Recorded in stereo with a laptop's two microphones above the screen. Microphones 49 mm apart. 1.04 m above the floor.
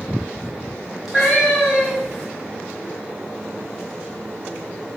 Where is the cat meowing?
5° right (ahead or behind), 1.7 m.